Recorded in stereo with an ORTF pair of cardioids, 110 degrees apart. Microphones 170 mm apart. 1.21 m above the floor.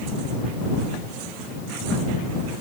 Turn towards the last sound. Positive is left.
No sound to turn to.